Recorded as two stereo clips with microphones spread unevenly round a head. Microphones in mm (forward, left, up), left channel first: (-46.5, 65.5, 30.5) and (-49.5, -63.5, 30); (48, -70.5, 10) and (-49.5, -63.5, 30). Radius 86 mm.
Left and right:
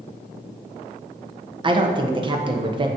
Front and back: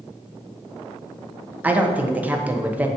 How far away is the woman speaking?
About 1.0 m.